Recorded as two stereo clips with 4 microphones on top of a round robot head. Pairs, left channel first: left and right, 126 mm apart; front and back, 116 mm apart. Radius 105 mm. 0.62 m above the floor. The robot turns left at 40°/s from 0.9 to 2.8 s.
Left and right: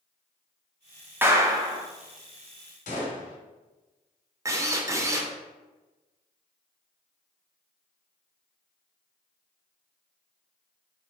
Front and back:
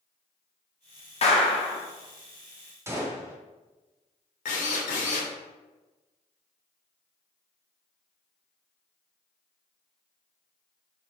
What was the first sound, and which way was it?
A clap, 15° right.